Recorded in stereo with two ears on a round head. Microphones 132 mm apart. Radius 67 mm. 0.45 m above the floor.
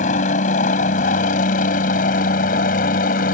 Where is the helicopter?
55° left (ahead or behind); by 3.4 s 60° left (ahead or behind).